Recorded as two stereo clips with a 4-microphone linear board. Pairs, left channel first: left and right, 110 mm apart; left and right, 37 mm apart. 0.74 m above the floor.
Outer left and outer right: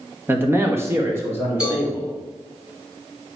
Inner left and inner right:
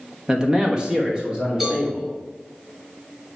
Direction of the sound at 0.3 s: 20° right (ahead or behind).